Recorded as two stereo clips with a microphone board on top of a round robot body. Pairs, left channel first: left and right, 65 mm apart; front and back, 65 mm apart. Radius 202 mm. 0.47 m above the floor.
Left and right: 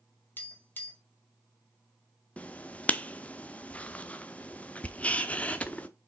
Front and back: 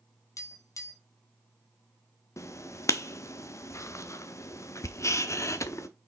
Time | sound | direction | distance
0.4 | tapping | 30° left | 2 m
2.4 | writing | 25° left | 1.1 m